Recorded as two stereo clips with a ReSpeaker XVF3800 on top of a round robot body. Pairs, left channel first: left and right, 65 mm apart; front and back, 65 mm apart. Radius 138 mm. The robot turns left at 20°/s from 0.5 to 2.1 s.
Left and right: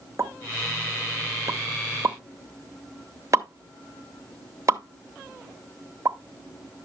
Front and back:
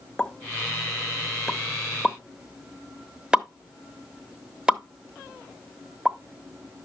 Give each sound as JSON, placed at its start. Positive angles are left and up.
{"t": 0.2, "sound": "a pop", "azimuth_deg": -75, "distance_m": 1.1}